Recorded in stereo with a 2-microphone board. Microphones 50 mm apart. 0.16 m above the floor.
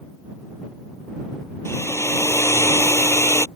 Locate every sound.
1.6 s a hair dryer: 60° left (ahead or behind)